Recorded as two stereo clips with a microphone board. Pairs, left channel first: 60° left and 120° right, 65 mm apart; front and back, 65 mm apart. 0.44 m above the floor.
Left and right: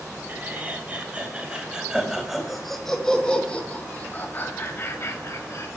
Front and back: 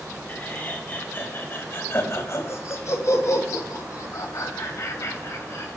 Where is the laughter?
60° right, 3.5 m; by 5.7 s 35° left, 3 m.